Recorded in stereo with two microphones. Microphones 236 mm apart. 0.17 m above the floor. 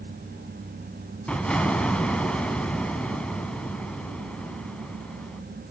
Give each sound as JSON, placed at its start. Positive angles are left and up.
{"t": 1.3, "sound": "an explosion", "side_deg": 5, "distance_m": 0.7}